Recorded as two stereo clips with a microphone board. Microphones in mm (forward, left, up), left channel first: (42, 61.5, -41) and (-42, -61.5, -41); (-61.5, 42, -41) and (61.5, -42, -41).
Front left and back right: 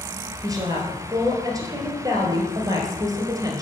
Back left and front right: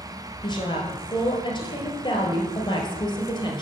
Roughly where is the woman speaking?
Behind.